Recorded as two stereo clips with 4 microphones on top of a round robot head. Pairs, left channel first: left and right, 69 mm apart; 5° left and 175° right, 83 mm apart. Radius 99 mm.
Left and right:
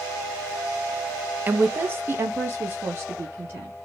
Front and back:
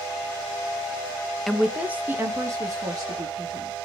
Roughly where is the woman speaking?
Right.